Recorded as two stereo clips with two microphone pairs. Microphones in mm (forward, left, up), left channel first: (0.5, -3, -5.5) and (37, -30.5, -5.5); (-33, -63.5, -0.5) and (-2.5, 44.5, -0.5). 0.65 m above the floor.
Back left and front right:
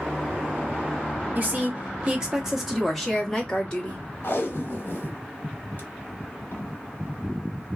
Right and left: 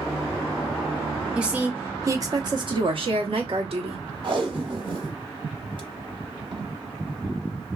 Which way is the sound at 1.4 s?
5° right.